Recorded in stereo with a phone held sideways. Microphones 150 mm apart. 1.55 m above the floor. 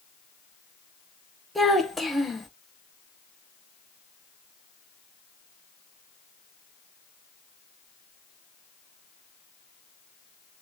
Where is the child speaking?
Centre (ahead or behind), 0.8 m.